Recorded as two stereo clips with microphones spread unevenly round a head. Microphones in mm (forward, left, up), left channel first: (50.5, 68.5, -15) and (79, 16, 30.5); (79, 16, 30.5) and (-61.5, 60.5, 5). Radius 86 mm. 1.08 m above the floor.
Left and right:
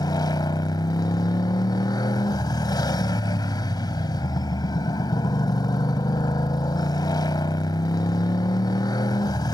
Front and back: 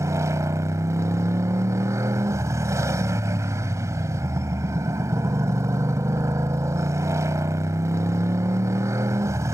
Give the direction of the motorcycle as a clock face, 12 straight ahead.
9 o'clock.